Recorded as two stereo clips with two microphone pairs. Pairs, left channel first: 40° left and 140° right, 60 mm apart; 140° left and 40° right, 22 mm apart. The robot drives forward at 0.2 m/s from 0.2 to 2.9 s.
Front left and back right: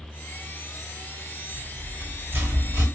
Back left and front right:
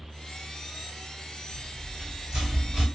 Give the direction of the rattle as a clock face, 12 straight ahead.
3 o'clock.